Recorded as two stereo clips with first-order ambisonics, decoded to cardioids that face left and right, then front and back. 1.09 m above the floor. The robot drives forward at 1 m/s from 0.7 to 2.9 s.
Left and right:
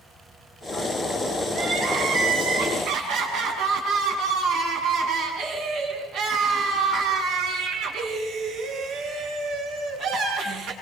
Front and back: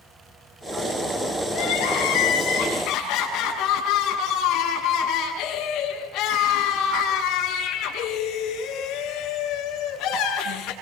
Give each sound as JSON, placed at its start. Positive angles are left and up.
{"t": 1.5, "sound": "crying", "azimuth_deg": -40, "distance_m": 9.5}